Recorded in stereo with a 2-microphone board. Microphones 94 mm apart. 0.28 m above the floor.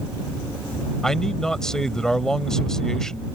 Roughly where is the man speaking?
Centre.